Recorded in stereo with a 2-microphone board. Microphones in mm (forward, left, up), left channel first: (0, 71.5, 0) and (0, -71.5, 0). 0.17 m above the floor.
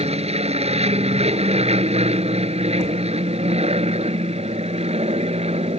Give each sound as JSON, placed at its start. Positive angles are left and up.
{"t": 0.0, "sound": "an aircraft", "side_deg": -50}